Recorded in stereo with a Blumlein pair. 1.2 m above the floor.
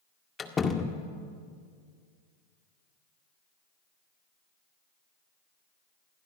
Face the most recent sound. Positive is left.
turn(degrees=20)